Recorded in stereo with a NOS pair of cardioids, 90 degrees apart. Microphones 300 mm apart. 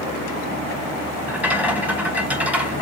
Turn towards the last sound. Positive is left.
turn(degrees=-5)